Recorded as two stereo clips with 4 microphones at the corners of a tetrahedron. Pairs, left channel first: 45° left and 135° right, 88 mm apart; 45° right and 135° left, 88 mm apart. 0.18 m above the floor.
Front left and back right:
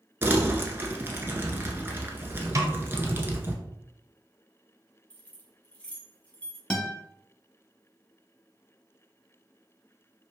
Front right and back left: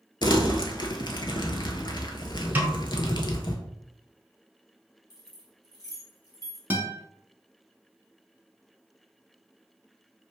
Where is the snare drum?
170° right, 0.7 m.